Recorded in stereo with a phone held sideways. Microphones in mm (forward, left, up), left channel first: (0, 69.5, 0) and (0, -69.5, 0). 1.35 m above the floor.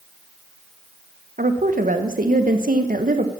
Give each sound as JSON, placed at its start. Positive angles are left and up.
{"t": 1.4, "sound": "a woman speaking", "side_deg": -80, "distance_m": 1.0}